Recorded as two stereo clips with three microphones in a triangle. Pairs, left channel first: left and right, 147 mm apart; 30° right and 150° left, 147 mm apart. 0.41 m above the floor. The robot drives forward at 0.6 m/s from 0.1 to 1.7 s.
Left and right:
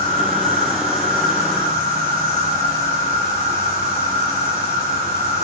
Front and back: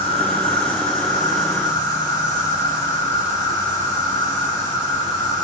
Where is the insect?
80° right, 3 m; by 5.5 s 95° right, 3 m.